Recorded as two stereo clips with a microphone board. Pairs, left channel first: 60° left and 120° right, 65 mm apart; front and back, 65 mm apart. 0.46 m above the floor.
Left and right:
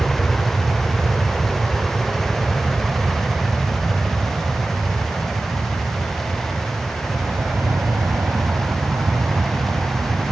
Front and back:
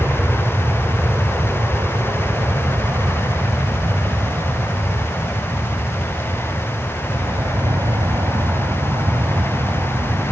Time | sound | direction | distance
0.0 | an aircraft | 145° left | ?